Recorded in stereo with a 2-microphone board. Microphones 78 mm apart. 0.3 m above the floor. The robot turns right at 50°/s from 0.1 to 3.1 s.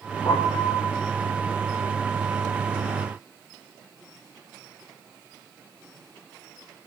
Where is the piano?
115° left, 8 m; by 0.9 s 150° left, 8 m.